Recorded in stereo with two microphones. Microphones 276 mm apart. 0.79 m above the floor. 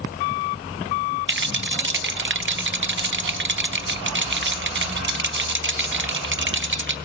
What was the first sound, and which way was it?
A rattle, 45° right (ahead or behind).